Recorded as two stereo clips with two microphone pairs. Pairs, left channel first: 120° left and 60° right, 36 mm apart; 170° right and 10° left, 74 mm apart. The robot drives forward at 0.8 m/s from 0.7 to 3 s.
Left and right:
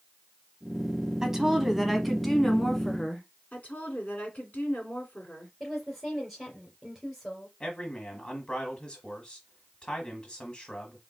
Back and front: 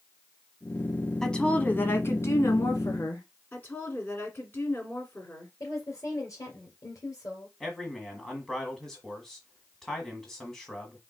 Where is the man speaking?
115° left, 1.4 m.